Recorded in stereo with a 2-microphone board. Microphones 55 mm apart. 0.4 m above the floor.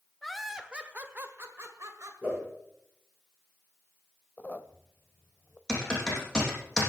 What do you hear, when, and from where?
0.2 s laughter: 5° left (ahead or behind), 1.4 m; by 2.1 s 55° right (ahead or behind), 2 m
2.2 s a whoosh: 20° right (ahead or behind), 9 m
4.4 s a squeak: 30° left (ahead or behind), 0.8 m
5.7 s typing on a keyboard: 10° left (ahead or behind), 6 m